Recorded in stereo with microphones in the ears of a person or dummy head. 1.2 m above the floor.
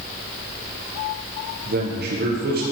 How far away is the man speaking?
About 0.8 m.